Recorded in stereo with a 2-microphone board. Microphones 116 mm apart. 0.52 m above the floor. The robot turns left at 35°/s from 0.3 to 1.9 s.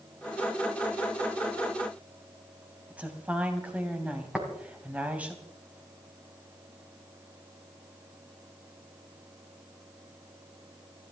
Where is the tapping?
5° right (ahead or behind), 3.5 m.